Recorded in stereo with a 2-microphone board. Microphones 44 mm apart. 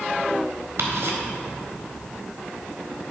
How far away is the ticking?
About 1.5 m.